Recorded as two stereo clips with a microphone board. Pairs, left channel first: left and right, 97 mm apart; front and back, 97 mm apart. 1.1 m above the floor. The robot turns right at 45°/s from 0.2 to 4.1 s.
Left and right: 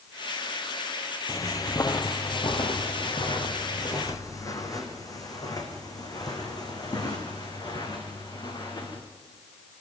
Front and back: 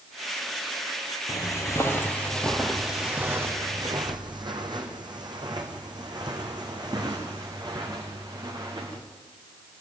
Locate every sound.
1.3 s footsteps: 45° left, 1.7 m; by 9.0 s 135° left, 6 m